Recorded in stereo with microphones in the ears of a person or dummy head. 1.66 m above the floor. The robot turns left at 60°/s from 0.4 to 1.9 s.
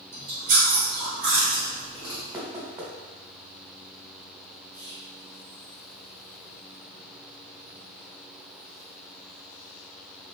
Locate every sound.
0.1 s chewing: 115° right, 1.6 m; by 2.2 s 155° left, 1.6 m
2.3 s knocking: 15° right (ahead or behind), 1.3 m
4.7 s whispering: 25° left (ahead or behind), 1.7 m